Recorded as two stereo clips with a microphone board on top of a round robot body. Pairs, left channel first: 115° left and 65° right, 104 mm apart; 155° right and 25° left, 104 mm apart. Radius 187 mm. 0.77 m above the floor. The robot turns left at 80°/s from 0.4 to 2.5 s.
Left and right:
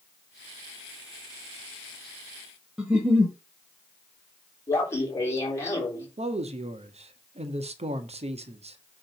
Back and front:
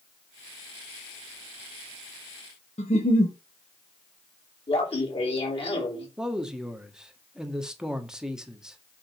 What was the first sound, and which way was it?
A giggle, 150° right.